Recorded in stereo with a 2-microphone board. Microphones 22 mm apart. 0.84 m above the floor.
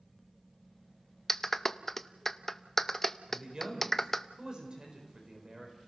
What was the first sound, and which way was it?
A clap, 10° left (ahead or behind).